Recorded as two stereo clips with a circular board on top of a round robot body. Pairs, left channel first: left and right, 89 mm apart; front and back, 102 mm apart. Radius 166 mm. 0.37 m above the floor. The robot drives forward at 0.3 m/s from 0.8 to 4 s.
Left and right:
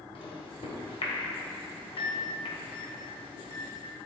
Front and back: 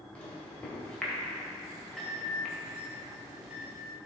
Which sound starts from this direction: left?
A microwave, at 0.1 s.